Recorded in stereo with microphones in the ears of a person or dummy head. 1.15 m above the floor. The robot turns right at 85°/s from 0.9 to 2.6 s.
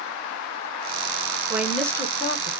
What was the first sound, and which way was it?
A woman speaking, 15° right.